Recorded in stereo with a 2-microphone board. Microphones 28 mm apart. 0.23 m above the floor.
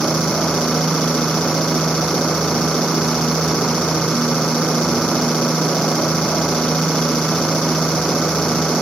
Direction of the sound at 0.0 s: 50° left (ahead or behind).